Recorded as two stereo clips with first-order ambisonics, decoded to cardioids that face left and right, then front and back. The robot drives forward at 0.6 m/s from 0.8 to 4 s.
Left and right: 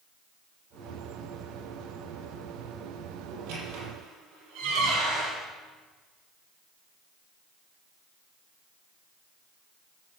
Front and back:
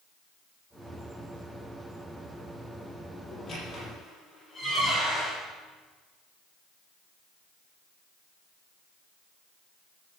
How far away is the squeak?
About 6.5 m.